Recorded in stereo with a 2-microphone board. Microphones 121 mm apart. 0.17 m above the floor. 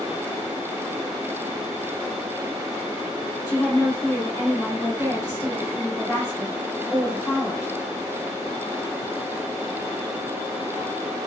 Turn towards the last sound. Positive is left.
turn(degrees=35)  # may be behind; listen again after turning